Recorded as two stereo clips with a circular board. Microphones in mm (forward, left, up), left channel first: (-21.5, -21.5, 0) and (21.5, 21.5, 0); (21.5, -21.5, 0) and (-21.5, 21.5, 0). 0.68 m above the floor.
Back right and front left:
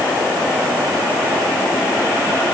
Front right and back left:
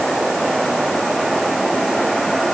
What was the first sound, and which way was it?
Only background noise.